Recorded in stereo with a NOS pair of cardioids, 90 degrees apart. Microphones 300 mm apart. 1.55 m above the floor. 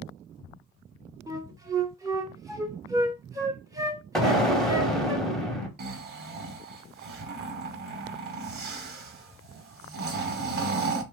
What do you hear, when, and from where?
1.3 s a flute: 10° right, 0.6 m
4.2 s an explosion: straight ahead, 0.7 m
5.8 s snoring: 35° right, 0.8 m